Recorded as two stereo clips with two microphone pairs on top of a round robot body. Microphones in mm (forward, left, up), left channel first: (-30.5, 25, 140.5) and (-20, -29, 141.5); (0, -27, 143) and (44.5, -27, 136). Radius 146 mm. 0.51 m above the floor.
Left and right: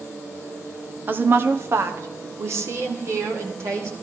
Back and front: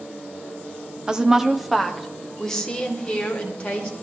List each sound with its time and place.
1.1 s a woman speaking: 50° right, 1.2 m; by 3.9 s 110° right, 2.5 m